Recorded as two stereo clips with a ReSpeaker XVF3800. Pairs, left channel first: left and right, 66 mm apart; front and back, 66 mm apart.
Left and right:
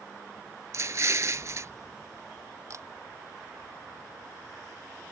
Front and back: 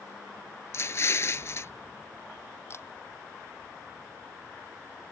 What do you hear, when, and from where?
0.7 s an explosion: 45° right
2.7 s a camera shutter: 50° right